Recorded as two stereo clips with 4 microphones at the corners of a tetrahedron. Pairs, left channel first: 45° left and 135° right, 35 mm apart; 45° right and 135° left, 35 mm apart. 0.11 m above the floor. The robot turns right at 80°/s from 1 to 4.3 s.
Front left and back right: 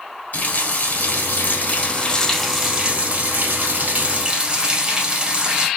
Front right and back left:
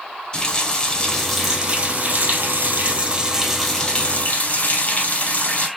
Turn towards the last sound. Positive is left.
turn(degrees=-80)